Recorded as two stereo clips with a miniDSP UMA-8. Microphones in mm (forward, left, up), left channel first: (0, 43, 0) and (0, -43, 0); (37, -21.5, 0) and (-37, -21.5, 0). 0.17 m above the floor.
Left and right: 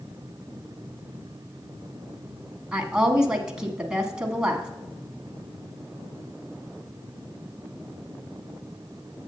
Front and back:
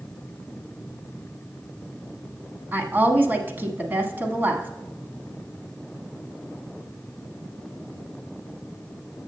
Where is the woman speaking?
160° right, 1.2 m.